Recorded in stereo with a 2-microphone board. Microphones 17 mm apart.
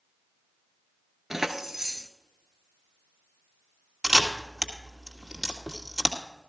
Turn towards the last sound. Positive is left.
turn(degrees=-45)  # may be behind; listen again after turning